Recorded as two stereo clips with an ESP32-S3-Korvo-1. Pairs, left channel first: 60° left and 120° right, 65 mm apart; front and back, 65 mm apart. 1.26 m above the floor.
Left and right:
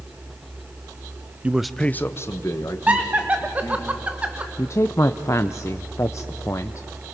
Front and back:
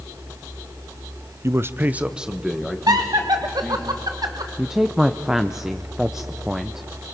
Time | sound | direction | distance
1.4 | a man speaking | straight behind | 0.7 m
2.9 | laughter | 170° left | 1.1 m
4.6 | a woman speaking | 100° left | 0.6 m